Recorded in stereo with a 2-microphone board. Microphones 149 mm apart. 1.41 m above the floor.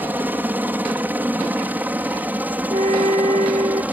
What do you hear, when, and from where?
0.0 s a helicopter: 10° right (ahead or behind)
2.7 s a flute: 50° right (ahead or behind)